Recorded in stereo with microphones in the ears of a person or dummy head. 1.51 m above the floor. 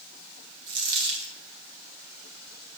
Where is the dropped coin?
70° right (ahead or behind), 3.5 m.